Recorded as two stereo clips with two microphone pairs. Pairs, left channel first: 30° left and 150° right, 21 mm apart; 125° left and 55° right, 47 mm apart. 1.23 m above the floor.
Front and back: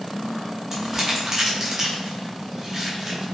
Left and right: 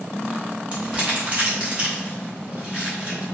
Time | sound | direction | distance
0.7 | crumpling | 105° right | 0.8 m